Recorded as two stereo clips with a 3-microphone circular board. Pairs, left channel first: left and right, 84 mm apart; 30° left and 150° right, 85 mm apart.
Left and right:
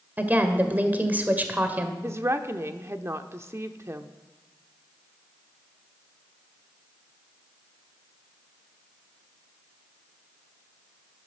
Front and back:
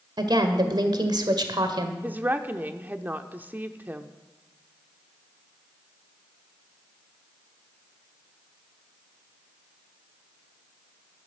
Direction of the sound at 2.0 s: 105° right.